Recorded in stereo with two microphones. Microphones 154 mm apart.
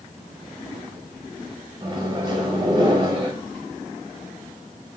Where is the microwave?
30° right (ahead or behind), 1.3 m.